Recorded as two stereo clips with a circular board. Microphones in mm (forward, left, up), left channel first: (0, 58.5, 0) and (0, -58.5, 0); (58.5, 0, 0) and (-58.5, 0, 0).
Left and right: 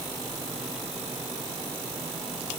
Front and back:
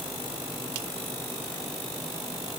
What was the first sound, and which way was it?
Only background noise.